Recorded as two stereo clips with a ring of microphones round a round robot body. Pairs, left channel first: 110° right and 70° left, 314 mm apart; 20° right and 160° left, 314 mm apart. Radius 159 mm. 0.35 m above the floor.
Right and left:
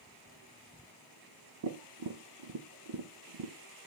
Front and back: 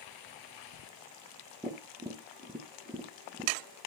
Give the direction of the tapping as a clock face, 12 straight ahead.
9 o'clock.